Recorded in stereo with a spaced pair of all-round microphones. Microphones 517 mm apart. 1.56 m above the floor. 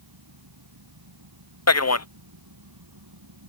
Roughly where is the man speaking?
Left.